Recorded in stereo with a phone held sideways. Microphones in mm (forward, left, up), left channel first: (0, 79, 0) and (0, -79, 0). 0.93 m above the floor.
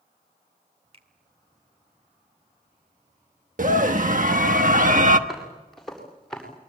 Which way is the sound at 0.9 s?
40° right (ahead or behind).